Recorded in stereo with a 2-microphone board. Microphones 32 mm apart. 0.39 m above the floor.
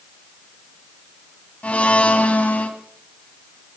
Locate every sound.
1.6 s a blender: 50° left (ahead or behind), 2 m